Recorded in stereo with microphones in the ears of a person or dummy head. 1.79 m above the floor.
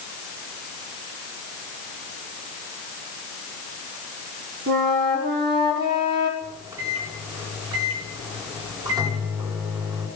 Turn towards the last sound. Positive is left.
turn(degrees=-30)  # may be behind; listen again after turning